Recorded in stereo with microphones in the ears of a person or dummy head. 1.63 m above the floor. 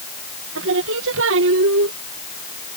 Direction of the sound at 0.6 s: 75° right (ahead or behind).